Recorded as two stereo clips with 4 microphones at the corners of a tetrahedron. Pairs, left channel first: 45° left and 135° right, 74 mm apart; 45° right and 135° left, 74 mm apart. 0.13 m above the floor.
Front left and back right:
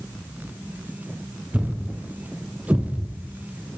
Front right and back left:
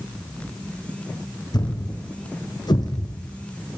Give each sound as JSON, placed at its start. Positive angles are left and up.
{"t": 1.5, "sound": "a thud", "azimuth_deg": -65, "distance_m": 2.5}